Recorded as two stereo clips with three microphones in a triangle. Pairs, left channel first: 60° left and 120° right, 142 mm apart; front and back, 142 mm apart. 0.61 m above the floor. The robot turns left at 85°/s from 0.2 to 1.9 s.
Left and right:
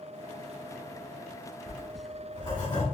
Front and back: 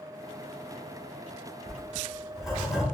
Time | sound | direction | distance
1.7 | writing | 110° left | 1.5 m